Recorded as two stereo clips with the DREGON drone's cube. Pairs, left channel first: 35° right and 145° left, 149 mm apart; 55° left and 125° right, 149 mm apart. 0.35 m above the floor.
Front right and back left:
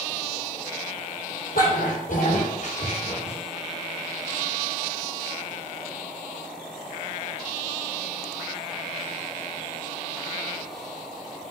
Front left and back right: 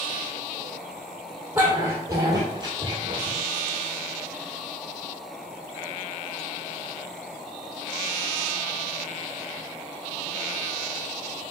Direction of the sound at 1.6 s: 50° right.